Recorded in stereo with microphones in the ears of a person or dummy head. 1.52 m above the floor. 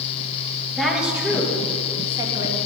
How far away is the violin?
No violin in this recording.